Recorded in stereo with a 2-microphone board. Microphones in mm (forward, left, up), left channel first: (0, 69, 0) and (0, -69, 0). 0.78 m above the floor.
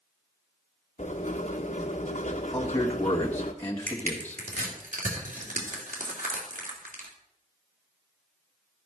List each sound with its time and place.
1.0 s writing: 55° left (ahead or behind), 1.3 m
2.5 s a man speaking: 15° left (ahead or behind), 1.5 m
3.9 s crushing: 65° right (ahead or behind), 2.5 m